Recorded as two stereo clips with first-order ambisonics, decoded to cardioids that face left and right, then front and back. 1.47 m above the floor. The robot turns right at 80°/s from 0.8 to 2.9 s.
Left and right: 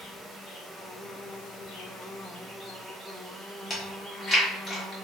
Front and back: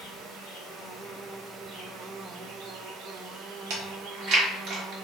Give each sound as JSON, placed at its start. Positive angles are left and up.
{"t": 0.0, "sound": "an insect", "azimuth_deg": 25, "distance_m": 0.9}
{"t": 3.7, "sound": "chewing", "azimuth_deg": 160, "distance_m": 1.1}